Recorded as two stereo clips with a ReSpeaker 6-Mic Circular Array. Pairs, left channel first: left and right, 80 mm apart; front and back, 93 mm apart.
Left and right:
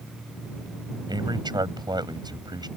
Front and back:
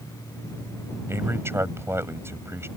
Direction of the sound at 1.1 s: 115° right.